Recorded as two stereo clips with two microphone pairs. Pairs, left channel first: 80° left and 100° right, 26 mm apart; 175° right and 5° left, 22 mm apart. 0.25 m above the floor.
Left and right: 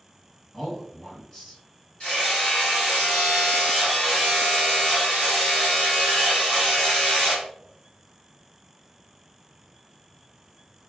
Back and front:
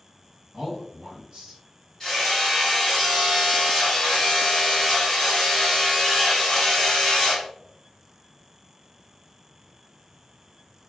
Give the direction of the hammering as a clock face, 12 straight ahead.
8 o'clock.